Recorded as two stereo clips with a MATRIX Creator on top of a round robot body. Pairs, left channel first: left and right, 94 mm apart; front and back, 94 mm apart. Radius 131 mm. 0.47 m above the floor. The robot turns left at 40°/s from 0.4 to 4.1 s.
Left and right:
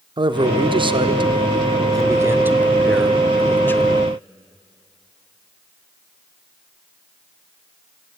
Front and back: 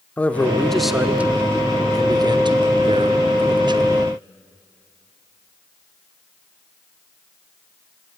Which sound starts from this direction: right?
A man speaking, at 0.2 s.